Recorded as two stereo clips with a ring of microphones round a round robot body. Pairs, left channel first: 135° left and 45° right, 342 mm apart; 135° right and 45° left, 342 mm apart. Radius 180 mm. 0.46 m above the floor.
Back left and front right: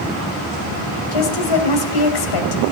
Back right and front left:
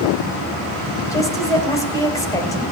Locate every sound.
1.1 s a woman speaking: 145° left, 3 m